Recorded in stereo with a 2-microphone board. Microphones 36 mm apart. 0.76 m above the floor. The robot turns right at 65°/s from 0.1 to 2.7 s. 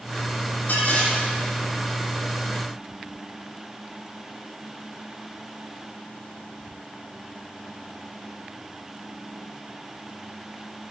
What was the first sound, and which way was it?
Dishes clattering, 100° left.